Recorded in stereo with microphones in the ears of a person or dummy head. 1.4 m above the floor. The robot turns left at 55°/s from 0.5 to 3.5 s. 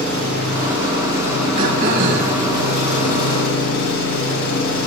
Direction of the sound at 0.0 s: 120° right.